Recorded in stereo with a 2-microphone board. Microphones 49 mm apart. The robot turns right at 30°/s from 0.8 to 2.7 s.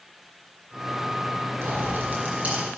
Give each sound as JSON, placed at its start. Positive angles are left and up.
{"t": 1.6, "sound": "a pop", "azimuth_deg": -55, "distance_m": 4.0}